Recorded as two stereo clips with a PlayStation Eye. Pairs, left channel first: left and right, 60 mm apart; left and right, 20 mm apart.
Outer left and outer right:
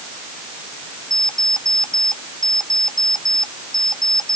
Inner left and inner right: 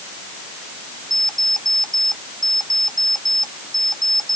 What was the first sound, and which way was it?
An alarm clock, 10° left (ahead or behind).